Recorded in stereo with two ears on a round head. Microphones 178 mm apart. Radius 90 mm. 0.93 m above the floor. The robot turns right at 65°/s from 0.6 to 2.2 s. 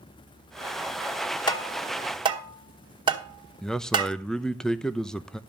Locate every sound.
1.5 s tapping: 25° left (ahead or behind), 1.9 m; by 4.2 s 25° right (ahead or behind), 1.9 m
3.6 s a man speaking: 5° left (ahead or behind), 0.6 m